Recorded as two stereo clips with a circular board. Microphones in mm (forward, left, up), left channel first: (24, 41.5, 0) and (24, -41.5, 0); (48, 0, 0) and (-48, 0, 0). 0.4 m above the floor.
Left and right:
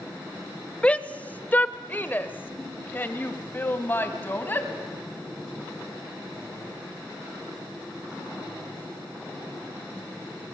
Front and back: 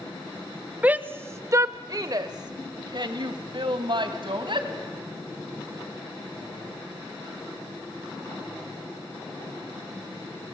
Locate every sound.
0.8 s a shout: 135° left, 0.8 m; by 4.7 s 155° left, 2.5 m